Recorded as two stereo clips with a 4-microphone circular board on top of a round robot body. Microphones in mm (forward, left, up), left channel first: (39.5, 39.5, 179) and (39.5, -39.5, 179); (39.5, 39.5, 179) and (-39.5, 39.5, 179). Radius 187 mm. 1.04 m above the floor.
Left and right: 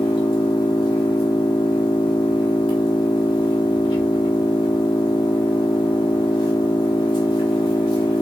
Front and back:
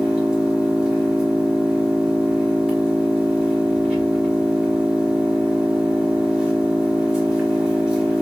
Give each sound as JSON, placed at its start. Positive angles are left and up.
{"t": 0.0, "sound": "an engine running", "azimuth_deg": 100, "distance_m": 1.5}